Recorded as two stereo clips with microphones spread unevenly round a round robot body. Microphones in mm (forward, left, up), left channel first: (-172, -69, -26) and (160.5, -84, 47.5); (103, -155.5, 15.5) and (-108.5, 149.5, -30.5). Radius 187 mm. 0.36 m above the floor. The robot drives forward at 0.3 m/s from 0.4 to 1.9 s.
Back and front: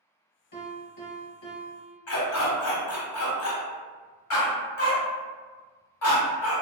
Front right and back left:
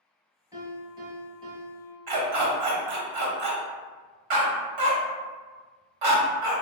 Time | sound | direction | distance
0.5 | a piano | 150° right | 2.0 m
2.1 | a dog barking | 135° left | 0.8 m